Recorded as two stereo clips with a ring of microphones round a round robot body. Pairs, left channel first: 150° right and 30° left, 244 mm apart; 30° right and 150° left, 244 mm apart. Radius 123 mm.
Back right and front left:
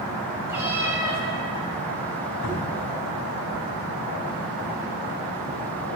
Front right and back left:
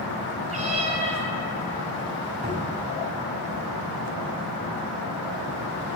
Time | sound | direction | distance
0.5 | a cat meowing | 105° left | 0.9 m
2.4 | a cupboard door | 150° right | 3 m